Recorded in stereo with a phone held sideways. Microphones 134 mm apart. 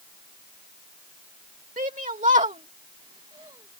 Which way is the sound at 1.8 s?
80° right.